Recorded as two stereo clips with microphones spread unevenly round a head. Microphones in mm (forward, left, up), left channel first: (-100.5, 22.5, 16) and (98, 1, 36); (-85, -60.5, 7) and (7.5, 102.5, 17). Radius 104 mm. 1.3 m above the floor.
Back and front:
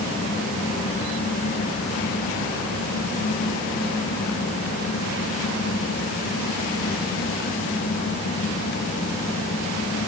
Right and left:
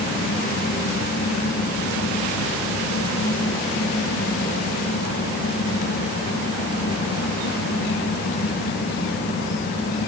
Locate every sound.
Only background noise.